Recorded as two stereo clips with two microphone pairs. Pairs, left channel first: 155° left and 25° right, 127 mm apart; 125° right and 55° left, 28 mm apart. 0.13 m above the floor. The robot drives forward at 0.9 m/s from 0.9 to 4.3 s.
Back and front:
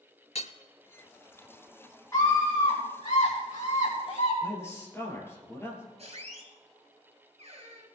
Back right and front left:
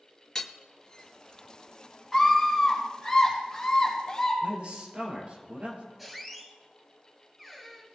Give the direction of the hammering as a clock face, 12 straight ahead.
7 o'clock.